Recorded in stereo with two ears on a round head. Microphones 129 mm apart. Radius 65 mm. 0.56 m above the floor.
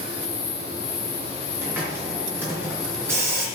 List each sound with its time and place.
1.6 s a hiss: 15° right (ahead or behind), 3.5 m